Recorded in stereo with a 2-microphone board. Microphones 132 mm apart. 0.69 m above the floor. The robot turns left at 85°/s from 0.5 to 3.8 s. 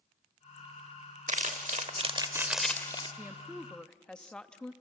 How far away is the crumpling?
About 1.3 m.